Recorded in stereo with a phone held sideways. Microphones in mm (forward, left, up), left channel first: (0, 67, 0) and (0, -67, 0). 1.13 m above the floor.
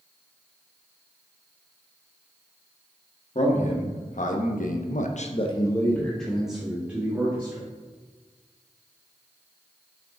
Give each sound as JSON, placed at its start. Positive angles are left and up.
{"t": 3.4, "sound": "a man speaking", "side_deg": 60, "distance_m": 1.7}